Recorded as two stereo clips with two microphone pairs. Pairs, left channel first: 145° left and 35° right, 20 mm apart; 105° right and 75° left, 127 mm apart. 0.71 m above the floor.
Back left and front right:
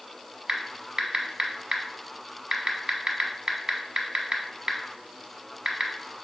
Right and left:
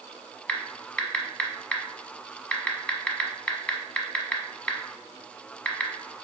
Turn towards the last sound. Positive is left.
turn(degrees=-30)